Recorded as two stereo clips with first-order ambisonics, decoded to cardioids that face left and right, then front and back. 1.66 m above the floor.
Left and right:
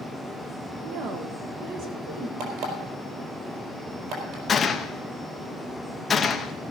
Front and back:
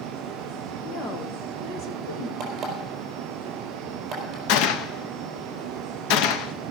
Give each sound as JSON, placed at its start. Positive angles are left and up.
{"t": 0.8, "sound": "a woman speaking", "azimuth_deg": -55, "distance_m": 1.2}
{"t": 2.4, "sound": "an alarm clock", "azimuth_deg": -125, "distance_m": 4.0}
{"t": 4.5, "sound": "a gunshot", "azimuth_deg": 15, "distance_m": 0.8}